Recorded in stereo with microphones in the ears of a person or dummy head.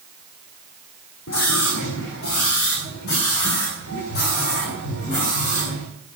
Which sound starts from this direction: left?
A scream, at 1.3 s.